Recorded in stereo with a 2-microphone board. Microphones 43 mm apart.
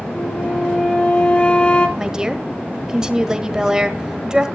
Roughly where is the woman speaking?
Centre.